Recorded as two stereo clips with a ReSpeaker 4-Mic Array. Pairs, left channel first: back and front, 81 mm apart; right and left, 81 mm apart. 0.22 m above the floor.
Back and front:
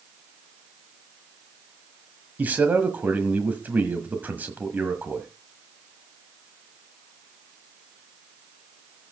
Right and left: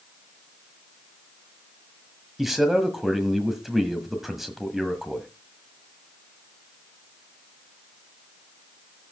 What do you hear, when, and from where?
2.4 s a man speaking: 5° left, 1.5 m